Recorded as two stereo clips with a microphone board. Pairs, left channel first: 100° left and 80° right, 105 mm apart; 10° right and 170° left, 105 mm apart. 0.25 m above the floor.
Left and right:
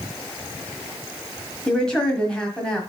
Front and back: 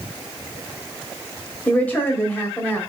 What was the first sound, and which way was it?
A woman speaking, 35° left.